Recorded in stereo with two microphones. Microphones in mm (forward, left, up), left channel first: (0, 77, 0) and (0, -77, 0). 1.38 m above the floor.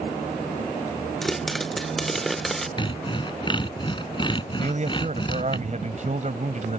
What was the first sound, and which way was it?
A pop, centre (ahead or behind).